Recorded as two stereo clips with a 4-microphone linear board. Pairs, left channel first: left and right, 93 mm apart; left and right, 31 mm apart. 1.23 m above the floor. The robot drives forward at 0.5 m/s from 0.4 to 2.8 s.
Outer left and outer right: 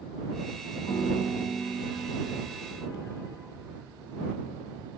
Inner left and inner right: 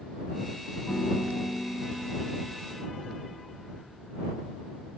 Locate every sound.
0.9 s a piano: 60° left (ahead or behind), 2.5 m; by 2.5 s 45° left (ahead or behind), 3 m